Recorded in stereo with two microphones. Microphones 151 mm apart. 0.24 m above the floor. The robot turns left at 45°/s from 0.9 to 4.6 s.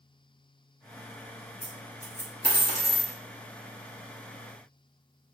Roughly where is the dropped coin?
Left.